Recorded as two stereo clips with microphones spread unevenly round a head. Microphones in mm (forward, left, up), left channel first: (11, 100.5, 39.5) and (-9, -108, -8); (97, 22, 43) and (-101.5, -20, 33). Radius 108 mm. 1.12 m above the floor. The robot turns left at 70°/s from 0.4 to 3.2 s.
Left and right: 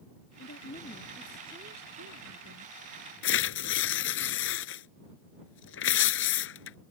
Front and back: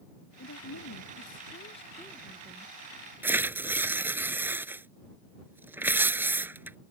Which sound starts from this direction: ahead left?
A woman speaking, at 0.4 s.